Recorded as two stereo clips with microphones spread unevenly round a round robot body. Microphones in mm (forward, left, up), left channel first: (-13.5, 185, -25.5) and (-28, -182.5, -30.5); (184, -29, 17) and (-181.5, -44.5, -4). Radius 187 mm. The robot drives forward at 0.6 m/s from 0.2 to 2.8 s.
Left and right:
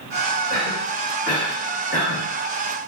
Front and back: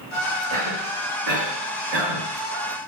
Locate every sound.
0.5 s a cough: 145° left, 1.9 m; by 2.3 s 160° left, 2.5 m